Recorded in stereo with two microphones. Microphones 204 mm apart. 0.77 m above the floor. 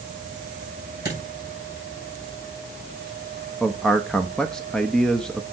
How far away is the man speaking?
About 0.8 m.